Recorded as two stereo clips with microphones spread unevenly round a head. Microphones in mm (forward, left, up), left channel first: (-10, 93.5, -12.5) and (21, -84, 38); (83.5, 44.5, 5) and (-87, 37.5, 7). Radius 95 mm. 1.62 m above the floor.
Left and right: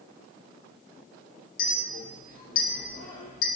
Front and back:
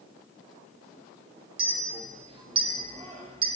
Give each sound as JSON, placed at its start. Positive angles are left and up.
{"t": 1.6, "sound": "a clink", "azimuth_deg": 140, "distance_m": 0.9}